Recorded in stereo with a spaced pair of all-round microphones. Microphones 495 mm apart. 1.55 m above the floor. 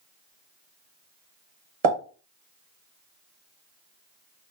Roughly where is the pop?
Right.